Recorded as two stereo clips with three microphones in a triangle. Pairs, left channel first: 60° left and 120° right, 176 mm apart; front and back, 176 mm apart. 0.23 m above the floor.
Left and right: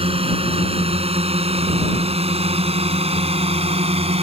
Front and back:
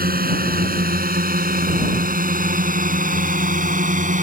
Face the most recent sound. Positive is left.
turn(degrees=-160)